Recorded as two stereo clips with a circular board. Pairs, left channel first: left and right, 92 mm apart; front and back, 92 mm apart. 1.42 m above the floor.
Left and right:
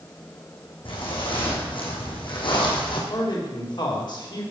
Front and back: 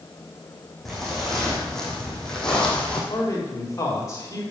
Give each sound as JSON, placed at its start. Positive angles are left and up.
{"t": 0.8, "sound": "footsteps", "azimuth_deg": 85, "distance_m": 4.0}
{"t": 3.1, "sound": "a man speaking", "azimuth_deg": 55, "distance_m": 3.5}